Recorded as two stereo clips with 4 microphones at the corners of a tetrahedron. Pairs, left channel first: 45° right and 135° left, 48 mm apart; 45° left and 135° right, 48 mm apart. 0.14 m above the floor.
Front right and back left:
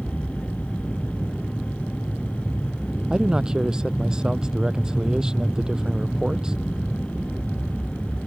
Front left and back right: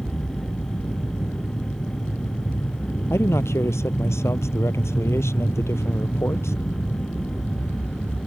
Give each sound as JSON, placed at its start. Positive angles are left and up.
{"t": 0.0, "sound": "an aircraft", "azimuth_deg": 25}
{"t": 3.1, "sound": "a man speaking", "azimuth_deg": 60}